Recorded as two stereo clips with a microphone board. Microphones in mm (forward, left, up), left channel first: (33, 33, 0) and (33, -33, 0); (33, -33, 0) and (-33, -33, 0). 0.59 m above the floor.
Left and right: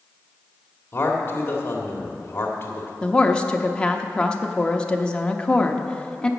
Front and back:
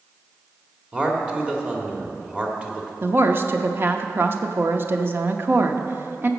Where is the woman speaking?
155° left, 0.8 m.